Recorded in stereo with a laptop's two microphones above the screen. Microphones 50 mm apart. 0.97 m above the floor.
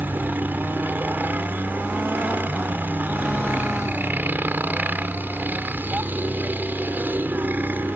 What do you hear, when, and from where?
0.0 s a helicopter: 40° right (ahead or behind)